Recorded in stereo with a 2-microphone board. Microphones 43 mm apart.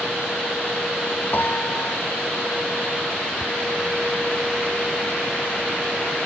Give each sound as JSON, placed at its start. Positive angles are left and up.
{"t": 1.3, "sound": "a piano", "side_deg": 50}